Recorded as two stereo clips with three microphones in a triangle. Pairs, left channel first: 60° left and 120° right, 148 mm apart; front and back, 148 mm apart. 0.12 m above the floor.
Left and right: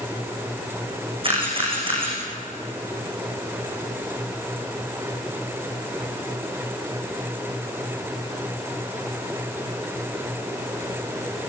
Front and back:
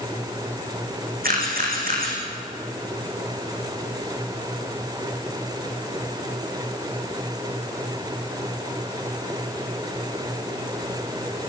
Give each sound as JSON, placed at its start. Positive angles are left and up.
{"t": 1.2, "sound": "a camera shutter", "azimuth_deg": -175, "distance_m": 6.5}